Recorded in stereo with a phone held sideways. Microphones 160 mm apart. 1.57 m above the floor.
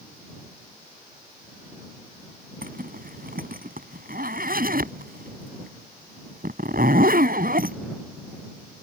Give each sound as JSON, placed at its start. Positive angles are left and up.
{"t": 2.6, "sound": "a zipper", "side_deg": -65}